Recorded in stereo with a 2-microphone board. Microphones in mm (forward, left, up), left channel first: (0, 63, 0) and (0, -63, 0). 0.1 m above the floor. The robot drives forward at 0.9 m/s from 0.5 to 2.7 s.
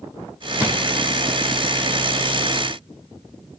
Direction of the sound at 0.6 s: 20° right (ahead or behind).